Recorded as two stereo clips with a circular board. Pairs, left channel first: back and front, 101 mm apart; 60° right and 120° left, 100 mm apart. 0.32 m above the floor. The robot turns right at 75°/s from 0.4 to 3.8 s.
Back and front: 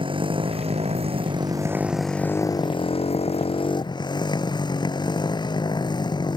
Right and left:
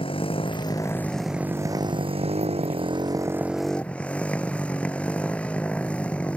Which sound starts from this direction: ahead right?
A motorcycle, at 0.0 s.